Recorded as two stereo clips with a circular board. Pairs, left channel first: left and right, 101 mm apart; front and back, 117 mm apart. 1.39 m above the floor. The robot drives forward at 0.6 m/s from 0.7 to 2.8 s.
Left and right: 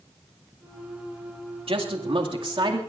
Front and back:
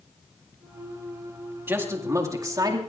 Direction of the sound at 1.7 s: 110° right.